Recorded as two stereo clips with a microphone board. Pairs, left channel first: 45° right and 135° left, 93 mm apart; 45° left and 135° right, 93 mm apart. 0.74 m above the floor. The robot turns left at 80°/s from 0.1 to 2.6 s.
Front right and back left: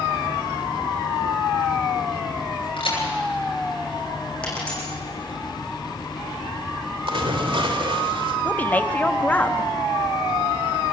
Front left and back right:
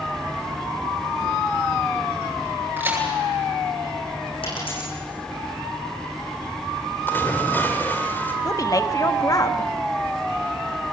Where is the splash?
115° left, 2.5 m.